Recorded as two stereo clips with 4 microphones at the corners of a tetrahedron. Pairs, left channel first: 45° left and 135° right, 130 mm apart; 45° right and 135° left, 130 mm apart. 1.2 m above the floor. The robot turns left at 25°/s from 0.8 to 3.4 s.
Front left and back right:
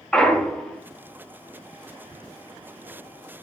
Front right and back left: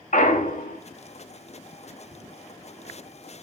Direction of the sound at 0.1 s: 40° right.